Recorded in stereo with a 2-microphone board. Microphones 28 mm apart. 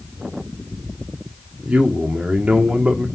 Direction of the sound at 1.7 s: 45° right (ahead or behind).